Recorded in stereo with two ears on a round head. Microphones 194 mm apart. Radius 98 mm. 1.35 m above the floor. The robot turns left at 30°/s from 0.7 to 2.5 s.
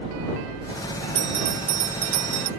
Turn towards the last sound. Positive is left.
turn(degrees=-80)